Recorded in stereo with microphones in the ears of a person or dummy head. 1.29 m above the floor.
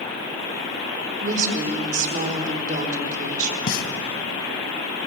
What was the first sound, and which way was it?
A woman speaking, 45° right (ahead or behind).